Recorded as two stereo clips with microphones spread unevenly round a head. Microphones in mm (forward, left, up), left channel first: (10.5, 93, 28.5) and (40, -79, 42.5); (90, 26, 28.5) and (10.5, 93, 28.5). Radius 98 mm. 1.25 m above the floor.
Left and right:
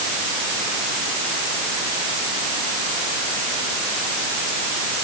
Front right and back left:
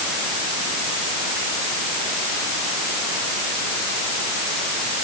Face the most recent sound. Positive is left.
No sound to turn to.